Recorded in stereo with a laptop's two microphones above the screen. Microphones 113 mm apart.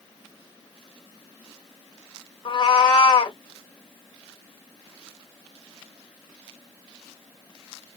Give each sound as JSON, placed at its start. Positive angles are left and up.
{"t": 2.5, "sound": "a cat meowing", "side_deg": 45, "distance_m": 1.5}